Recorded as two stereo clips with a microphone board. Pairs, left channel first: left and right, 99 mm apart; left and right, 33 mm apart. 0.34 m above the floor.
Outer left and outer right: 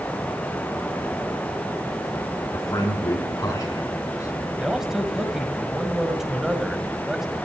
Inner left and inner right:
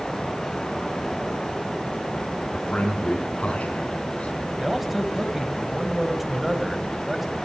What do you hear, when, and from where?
2.5 s a man speaking: 35° left (ahead or behind), 3.5 m
4.6 s a man speaking: 5° right (ahead or behind), 1.9 m